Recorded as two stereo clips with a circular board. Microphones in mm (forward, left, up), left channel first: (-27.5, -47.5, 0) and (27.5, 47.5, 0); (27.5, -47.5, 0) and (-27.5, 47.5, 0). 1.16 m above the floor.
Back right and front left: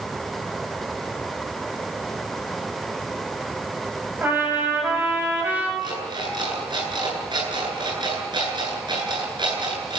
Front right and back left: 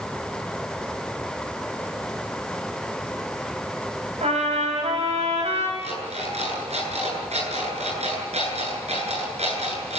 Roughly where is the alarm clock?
Left.